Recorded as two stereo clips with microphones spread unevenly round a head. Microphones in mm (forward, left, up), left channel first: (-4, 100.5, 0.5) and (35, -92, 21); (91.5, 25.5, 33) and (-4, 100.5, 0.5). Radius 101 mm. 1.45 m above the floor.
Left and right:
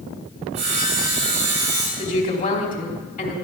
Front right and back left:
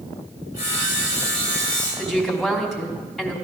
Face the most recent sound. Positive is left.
turn(degrees=50)